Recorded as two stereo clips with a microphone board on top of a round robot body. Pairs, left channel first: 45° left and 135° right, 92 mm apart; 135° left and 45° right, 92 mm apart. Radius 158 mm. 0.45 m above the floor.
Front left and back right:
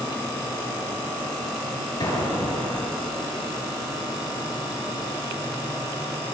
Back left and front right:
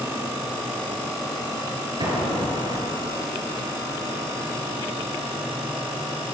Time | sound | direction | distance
2.0 | an explosion | 5° right | 7 m